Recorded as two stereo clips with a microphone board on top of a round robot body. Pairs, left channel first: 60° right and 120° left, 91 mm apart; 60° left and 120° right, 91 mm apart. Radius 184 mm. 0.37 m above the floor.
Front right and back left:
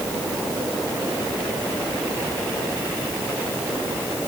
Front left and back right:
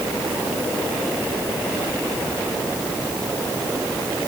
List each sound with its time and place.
Only background noise.